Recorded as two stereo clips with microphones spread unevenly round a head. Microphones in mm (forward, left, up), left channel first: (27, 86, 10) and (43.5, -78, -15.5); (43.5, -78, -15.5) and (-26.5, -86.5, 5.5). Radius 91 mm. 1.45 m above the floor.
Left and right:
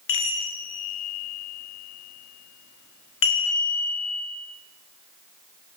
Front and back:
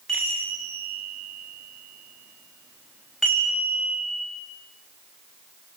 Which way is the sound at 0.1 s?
95° left.